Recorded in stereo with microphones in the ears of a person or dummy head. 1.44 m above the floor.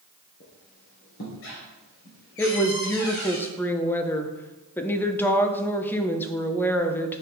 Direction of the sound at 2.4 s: 10° left (ahead or behind).